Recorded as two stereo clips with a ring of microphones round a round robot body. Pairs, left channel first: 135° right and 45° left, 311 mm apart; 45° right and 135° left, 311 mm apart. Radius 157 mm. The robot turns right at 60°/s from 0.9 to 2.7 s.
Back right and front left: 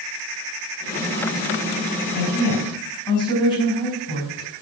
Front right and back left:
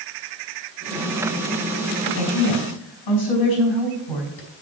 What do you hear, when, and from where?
2.1 s a woman speaking: 90° right, 5.5 m; by 4.5 s 60° right, 5.5 m